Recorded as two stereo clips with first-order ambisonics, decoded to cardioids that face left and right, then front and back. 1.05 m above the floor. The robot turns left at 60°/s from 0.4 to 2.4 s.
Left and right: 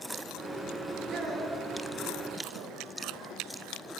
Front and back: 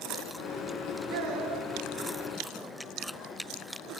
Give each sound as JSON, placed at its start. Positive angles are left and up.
{"t": 1.1, "sound": "a child speaking", "azimuth_deg": -165, "distance_m": 3.5}